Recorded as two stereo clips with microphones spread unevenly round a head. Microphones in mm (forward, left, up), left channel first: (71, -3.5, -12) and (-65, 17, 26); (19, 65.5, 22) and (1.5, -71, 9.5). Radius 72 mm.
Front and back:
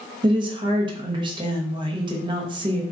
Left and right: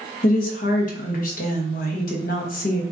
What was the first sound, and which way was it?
A woman speaking, 110° left.